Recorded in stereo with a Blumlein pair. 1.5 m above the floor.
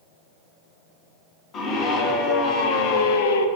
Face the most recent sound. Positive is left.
turn(degrees=65)